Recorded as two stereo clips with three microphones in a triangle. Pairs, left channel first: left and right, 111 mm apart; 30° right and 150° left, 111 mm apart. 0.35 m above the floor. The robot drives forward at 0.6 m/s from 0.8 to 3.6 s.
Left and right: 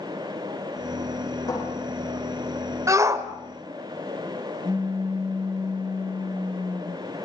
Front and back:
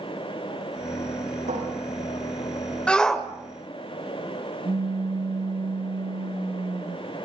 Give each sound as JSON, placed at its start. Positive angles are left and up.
{"t": 1.5, "sound": "a cupboard door", "azimuth_deg": 145, "distance_m": 8.5}
{"t": 2.9, "sound": "a shout", "azimuth_deg": -100, "distance_m": 1.5}
{"t": 4.7, "sound": "a pop", "azimuth_deg": -170, "distance_m": 3.0}